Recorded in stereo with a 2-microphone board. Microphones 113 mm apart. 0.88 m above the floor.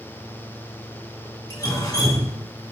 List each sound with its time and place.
1.5 s dripping: 35° left (ahead or behind), 2.5 m